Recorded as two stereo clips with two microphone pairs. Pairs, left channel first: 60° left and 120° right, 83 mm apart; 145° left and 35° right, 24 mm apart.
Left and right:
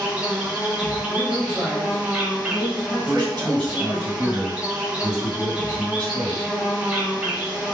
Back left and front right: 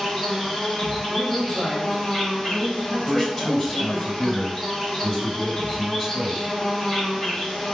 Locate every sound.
0.0 s an insect: 175° right, 0.8 m
1.1 s a man speaking: 170° left, 1.7 m
3.0 s a man speaking: 160° right, 2.0 m